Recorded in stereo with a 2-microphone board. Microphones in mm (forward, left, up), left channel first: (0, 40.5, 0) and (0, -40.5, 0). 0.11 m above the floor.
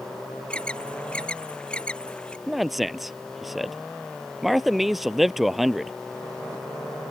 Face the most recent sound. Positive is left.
turn(degrees=0)  # may be behind; listen again after turning